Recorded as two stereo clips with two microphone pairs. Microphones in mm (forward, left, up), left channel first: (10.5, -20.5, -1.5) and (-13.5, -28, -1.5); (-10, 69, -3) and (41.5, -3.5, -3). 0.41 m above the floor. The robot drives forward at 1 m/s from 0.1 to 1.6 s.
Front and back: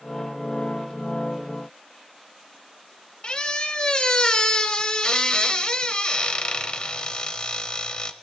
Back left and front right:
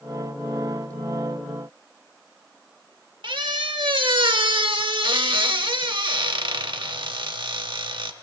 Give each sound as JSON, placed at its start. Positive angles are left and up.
{"t": 3.2, "sound": "a squeak", "azimuth_deg": -35, "distance_m": 0.6}